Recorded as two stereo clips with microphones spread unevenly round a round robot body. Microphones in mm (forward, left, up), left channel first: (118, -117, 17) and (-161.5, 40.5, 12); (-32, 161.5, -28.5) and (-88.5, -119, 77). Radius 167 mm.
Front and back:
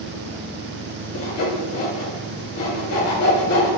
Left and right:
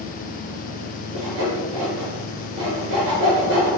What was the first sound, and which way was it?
Sawing, 70° right.